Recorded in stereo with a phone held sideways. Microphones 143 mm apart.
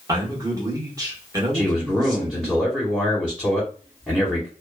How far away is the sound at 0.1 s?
About 1.2 m.